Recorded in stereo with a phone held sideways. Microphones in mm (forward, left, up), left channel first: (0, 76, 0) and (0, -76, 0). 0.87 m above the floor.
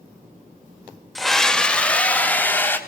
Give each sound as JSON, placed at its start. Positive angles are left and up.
{"t": 1.1, "sound": "a scream", "side_deg": 0, "distance_m": 1.6}